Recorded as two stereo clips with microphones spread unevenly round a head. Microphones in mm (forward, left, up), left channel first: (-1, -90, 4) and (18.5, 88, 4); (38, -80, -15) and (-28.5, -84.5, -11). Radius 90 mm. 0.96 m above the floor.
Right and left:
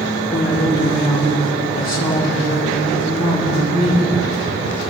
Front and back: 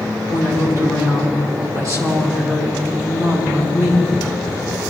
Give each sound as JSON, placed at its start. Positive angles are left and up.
{"t": 0.3, "sound": "a woman speaking", "azimuth_deg": -140, "distance_m": 3.5}